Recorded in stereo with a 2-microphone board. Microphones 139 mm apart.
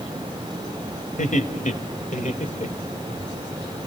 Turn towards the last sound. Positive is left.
turn(degrees=50)  # may be behind; listen again after turning